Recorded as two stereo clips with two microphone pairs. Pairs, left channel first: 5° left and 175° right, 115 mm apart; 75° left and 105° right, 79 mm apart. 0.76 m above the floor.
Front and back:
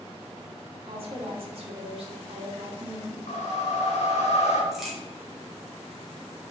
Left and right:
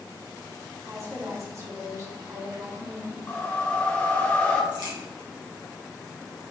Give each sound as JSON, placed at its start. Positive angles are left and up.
{"t": 0.9, "sound": "a woman speaking", "azimuth_deg": -150, "distance_m": 2.0}
{"t": 3.3, "sound": "a whoosh", "azimuth_deg": 5, "distance_m": 2.5}
{"t": 4.7, "sound": "a crack", "azimuth_deg": -85, "distance_m": 2.5}